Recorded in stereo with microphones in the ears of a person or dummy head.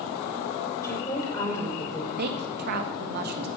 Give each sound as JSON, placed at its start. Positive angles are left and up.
{"t": 0.8, "sound": "a woman speaking", "side_deg": 15, "distance_m": 5.5}
{"t": 2.2, "sound": "a woman speaking", "side_deg": -50, "distance_m": 1.3}